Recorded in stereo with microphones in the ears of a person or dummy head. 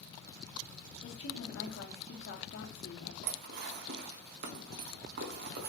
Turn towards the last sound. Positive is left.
turn(degrees=-55)  # may be behind; listen again after turning